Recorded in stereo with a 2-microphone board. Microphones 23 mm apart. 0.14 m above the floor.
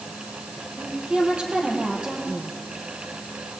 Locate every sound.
0.8 s a woman speaking: 50° right (ahead or behind), 5 m